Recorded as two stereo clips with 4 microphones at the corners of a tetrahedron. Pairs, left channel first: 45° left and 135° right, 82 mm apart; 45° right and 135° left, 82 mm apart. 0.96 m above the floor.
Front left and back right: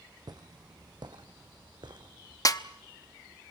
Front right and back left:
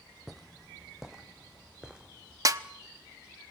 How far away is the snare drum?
About 0.8 m.